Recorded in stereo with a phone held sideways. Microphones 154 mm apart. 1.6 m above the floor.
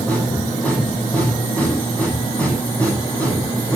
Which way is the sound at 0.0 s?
10° left (ahead or behind).